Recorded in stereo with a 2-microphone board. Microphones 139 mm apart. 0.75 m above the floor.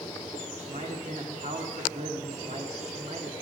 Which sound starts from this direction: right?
A man speaking, at 0.6 s.